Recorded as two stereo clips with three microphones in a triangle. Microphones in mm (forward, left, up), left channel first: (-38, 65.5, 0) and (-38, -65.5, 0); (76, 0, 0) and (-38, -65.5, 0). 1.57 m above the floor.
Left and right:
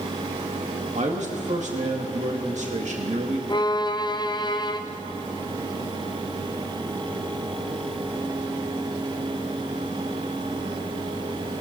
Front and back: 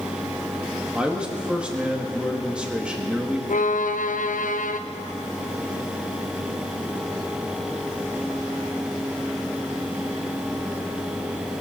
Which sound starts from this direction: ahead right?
A man speaking, at 0.9 s.